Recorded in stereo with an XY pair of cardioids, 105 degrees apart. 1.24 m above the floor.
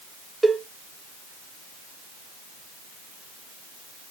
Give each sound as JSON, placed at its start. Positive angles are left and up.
{"t": 0.4, "sound": "a cowbell", "azimuth_deg": -10, "distance_m": 0.6}